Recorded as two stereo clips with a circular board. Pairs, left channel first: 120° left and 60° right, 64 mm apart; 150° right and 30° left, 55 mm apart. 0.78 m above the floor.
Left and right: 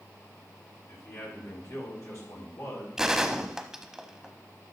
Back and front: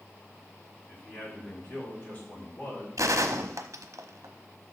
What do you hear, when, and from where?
0.9 s a man speaking: 155° left, 6 m
3.0 s a gunshot: 25° left, 0.9 m